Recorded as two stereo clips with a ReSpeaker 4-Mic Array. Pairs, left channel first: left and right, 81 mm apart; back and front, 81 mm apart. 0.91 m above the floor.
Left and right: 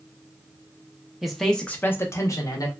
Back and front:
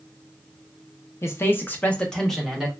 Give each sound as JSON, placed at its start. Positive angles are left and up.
{"t": 1.2, "sound": "a man speaking", "azimuth_deg": -170, "distance_m": 0.6}